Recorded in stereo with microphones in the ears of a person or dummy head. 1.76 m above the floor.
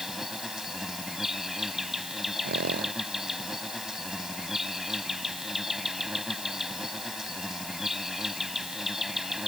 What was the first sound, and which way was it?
An insect, centre (ahead or behind).